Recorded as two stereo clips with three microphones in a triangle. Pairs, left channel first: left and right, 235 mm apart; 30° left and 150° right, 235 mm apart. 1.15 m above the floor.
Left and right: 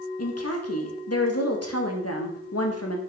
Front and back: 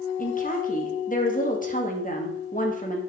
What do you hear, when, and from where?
0.2 s a woman speaking: 85° left, 1.4 m